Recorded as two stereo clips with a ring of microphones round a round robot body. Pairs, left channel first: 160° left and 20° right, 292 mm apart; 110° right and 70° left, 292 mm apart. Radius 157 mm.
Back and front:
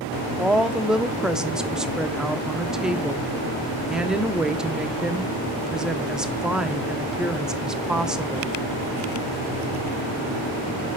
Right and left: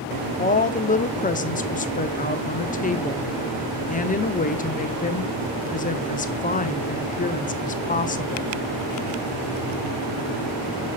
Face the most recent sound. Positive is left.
turn(degrees=-105)